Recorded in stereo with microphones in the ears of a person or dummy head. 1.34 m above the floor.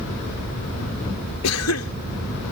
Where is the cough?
80° left.